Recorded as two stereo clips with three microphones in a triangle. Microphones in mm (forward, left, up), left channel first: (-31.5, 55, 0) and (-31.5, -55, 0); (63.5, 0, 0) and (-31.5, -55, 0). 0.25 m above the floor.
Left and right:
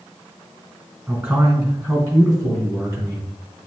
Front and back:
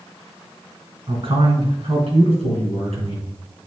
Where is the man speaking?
155° right, 3 m; by 3.3 s 145° right, 4 m.